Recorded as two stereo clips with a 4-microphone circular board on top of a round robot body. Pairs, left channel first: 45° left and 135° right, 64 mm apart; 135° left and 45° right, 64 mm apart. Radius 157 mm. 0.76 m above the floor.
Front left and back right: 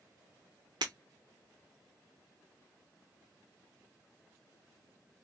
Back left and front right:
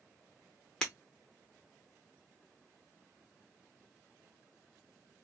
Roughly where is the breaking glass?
Behind right.